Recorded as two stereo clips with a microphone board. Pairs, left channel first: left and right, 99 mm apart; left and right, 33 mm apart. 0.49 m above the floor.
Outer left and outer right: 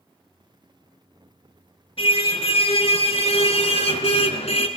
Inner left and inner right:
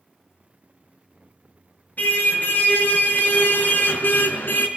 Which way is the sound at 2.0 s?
65° left (ahead or behind).